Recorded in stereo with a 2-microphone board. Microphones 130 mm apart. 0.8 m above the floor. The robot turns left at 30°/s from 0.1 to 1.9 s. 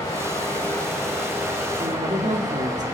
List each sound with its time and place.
0.0 s running water: 30° left, 3.5 m; by 2.9 s 25° right, 3.5 m
1.8 s a woman speaking: 70° right (ahead or behind), 1.7 m; by 2.8 s 65° right (ahead or behind), 1.7 m